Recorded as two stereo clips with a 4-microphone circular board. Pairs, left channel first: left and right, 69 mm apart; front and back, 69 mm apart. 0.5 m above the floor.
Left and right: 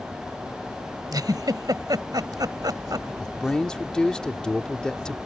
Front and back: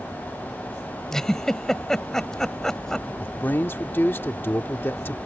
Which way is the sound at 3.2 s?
20° left.